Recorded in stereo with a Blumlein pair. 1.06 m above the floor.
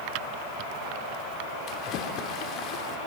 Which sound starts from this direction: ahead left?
A splash, at 1.7 s.